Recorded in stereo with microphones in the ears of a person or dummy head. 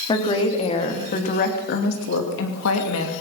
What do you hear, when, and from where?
0.1 s a woman speaking: 35° left (ahead or behind), 4 m; by 3.1 s 80° left, 3 m